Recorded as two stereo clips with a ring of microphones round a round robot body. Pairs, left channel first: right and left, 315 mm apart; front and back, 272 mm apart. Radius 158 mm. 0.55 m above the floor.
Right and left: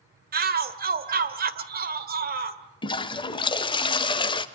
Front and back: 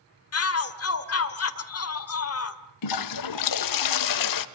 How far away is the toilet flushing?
About 1.0 m.